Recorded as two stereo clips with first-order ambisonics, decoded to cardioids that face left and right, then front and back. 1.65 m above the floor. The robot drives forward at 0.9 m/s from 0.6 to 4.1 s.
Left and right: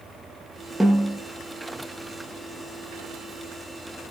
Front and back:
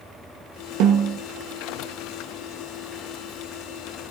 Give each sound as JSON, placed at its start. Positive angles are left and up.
{"t": 0.8, "sound": "a snare drum", "azimuth_deg": -175, "distance_m": 1.3}